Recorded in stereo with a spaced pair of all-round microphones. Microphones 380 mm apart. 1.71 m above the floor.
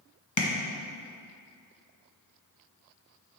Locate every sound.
0.4 s tapping: 50° left (ahead or behind), 0.9 m